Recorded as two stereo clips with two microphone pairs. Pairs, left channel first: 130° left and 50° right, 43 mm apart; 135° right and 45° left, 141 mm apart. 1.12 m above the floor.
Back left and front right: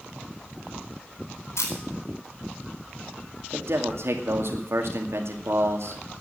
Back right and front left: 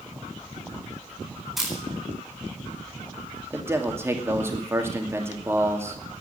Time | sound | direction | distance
1.6 | a camera shutter | 130° left | 4.5 m
3.5 | a man speaking | 30° right | 2.5 m